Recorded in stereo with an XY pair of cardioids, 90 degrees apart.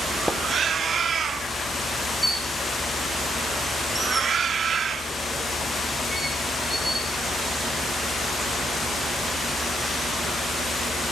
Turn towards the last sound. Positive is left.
turn(degrees=-10)